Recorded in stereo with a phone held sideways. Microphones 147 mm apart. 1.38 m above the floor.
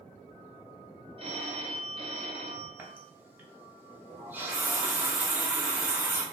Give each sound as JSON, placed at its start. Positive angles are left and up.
{"t": 1.2, "sound": "a phone ringing", "side_deg": -40, "distance_m": 0.7}
{"t": 2.8, "sound": "a running tap", "side_deg": -15, "distance_m": 0.6}